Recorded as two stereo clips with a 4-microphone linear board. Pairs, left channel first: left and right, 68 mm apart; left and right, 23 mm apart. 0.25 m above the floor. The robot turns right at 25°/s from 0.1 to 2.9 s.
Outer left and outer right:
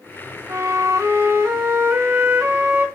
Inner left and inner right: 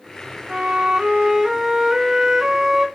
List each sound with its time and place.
0.5 s a flute: 90° right, 1.7 m; by 2.9 s 30° right, 1.7 m